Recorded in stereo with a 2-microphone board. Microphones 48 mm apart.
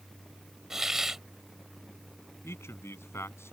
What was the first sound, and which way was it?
A hiss, 10° right (ahead or behind).